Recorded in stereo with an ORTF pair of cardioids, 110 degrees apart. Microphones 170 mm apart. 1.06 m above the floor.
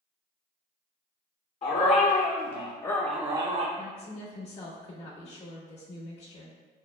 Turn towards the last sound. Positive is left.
turn(degrees=40)